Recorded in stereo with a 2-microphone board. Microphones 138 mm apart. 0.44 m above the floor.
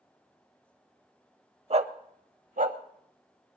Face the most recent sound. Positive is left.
turn(degrees=-70)  # may be behind; listen again after turning